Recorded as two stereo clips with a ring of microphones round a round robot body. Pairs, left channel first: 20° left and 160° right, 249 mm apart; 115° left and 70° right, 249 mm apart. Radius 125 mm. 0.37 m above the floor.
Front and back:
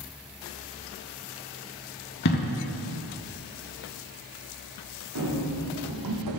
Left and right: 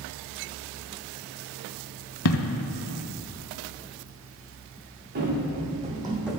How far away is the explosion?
About 0.6 m.